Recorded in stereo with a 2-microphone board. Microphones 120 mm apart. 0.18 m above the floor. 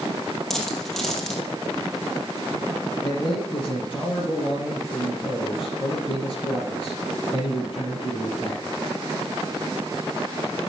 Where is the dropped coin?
5° left (ahead or behind), 2.5 m.